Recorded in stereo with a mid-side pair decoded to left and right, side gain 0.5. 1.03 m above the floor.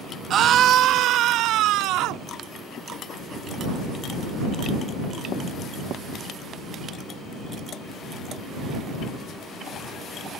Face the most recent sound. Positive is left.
turn(degrees=-80)